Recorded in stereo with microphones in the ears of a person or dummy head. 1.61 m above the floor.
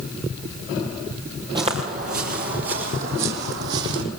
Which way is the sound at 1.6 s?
25° right (ahead or behind).